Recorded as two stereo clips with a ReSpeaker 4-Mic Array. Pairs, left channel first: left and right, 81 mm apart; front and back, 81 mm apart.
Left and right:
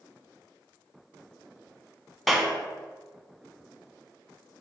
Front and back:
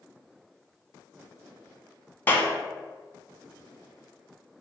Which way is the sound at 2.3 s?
5° right.